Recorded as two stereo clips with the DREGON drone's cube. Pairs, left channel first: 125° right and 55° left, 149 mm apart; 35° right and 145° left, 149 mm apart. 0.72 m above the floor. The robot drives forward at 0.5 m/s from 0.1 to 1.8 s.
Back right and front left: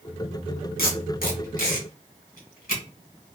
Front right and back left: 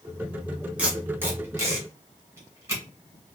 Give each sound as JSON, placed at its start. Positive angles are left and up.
{"t": 0.8, "sound": "tape being pulled", "azimuth_deg": -135, "distance_m": 1.4}